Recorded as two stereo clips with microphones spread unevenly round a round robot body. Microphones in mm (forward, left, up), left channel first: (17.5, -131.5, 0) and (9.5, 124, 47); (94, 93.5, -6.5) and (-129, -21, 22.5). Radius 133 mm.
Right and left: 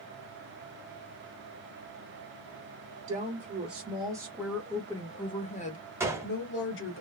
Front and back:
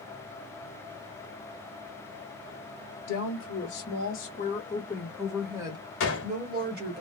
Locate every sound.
3.1 s a woman speaking: 30° left, 1.4 m; by 7.0 s 100° right, 1.5 m
6.0 s a gunshot: 5° left, 1.1 m